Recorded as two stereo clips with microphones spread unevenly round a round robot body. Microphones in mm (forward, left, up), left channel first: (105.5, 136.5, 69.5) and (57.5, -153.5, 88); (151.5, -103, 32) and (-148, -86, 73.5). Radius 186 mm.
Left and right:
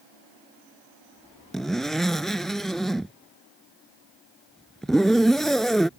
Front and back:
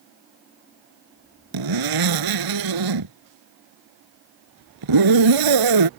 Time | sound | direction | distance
1.5 | a zipper | 170° left | ?